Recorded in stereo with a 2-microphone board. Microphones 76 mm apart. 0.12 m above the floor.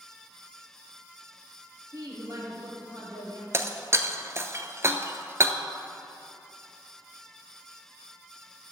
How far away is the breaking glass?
About 0.6 m.